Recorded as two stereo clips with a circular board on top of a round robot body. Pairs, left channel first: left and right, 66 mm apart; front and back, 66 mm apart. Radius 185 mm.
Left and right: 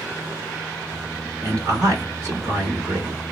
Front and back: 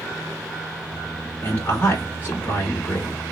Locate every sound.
1.4 s a man speaking: 55° right, 2.0 m